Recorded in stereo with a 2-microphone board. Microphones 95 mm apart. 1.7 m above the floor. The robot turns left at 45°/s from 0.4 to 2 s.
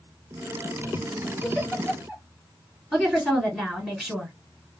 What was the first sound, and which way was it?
A giggle, 10° right (ahead or behind).